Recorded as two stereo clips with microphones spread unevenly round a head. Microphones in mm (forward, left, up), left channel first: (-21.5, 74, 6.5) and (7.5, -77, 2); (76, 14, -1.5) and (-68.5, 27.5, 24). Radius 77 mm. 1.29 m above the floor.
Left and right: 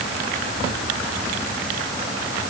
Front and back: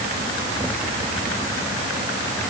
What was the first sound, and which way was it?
Only background noise.